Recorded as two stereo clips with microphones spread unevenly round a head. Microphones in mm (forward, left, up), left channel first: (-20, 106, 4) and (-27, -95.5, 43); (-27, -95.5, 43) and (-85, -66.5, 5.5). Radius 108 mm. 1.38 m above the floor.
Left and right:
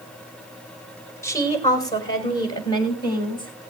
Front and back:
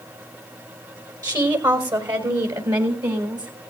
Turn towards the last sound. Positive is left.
turn(degrees=155)